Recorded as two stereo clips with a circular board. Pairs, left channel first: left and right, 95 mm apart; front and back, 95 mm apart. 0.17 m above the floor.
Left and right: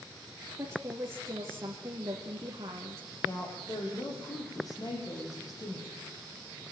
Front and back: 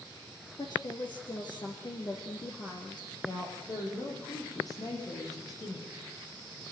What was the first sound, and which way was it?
A woman speaking, 35° right.